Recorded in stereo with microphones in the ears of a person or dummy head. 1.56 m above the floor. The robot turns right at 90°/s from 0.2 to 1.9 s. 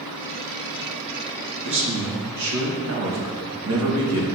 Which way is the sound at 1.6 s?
55° right (ahead or behind).